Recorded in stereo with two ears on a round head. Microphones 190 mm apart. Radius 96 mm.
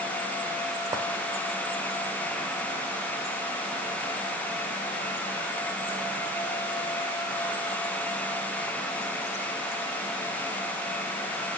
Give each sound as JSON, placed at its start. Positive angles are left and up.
{"t": 0.9, "sound": "a clink", "side_deg": -15, "distance_m": 2.0}